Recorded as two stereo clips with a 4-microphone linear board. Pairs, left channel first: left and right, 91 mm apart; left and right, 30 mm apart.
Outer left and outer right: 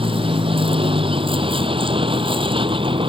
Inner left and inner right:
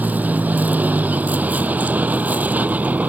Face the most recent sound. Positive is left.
turn(degrees=-75)  # may be behind; listen again after turning